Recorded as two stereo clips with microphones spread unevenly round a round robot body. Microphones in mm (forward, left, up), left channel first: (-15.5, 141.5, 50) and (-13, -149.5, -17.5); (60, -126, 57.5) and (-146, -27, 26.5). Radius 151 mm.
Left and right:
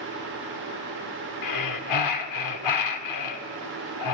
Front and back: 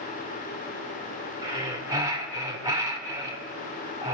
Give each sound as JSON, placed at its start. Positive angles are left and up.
{"t": 1.4, "sound": "breathing", "azimuth_deg": 85, "distance_m": 2.0}